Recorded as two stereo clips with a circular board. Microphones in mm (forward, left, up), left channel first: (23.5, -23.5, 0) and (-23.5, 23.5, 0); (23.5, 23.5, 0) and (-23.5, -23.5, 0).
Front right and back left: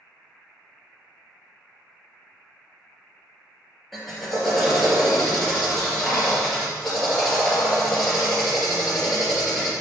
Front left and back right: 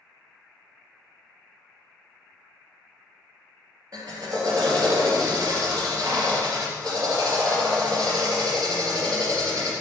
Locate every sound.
3.9 s a drill: 135° right, 3 m